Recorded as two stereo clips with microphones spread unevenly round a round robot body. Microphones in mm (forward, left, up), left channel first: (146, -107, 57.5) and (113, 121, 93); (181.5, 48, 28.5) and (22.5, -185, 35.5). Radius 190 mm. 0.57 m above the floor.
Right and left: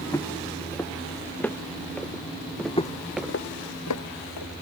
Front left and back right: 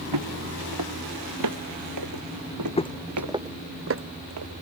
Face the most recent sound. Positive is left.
turn(degrees=-105)